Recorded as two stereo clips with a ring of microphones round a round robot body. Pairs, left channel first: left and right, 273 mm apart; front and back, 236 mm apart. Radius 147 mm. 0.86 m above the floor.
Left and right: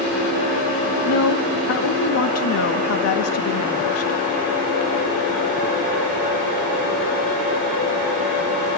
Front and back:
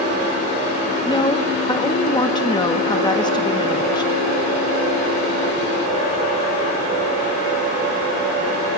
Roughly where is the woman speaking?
Left.